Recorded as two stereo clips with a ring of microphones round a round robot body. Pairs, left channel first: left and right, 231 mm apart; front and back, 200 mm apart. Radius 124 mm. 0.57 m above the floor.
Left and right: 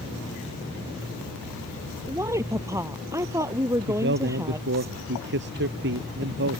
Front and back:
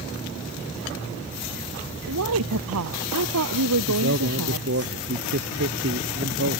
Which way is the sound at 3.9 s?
135° right.